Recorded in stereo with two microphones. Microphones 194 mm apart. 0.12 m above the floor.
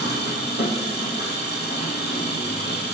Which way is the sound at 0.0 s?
65° left (ahead or behind).